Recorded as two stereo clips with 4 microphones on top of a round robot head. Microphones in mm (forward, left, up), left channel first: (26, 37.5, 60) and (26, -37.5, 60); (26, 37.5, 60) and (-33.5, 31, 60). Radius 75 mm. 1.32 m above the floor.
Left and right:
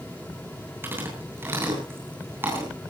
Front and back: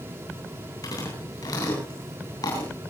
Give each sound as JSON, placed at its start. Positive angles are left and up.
{"t": 0.8, "sound": "chewing", "azimuth_deg": -30, "distance_m": 8.5}